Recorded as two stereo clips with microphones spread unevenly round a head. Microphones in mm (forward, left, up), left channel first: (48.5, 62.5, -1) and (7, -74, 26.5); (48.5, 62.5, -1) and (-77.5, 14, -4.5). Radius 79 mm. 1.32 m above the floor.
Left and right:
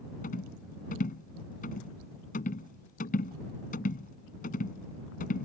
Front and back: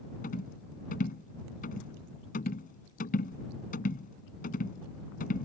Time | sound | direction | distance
0.2 | a rattle | 40° left | ?